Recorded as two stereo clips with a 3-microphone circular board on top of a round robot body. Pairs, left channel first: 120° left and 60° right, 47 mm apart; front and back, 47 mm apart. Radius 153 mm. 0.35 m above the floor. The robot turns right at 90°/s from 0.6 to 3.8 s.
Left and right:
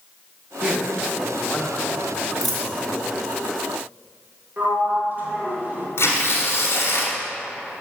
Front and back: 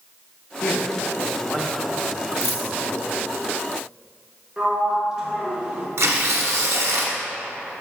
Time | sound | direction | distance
0.6 | a man speaking | 20° right | 1.1 m
2.4 | a dropped coin | 20° left | 1.4 m
4.6 | a sliding door | 105° right | 1.3 m
6.0 | tearing paper | 155° left | 1.1 m